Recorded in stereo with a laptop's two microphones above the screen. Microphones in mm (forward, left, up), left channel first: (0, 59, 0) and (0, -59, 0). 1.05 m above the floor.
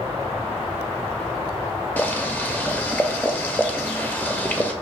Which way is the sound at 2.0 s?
15° left (ahead or behind).